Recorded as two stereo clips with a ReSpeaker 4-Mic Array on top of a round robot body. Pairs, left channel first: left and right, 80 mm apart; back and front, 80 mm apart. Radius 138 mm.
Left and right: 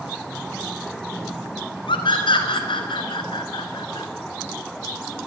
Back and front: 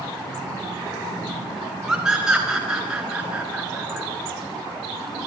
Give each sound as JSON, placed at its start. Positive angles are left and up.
{"t": 1.9, "sound": "a scream", "azimuth_deg": 85, "distance_m": 5.5}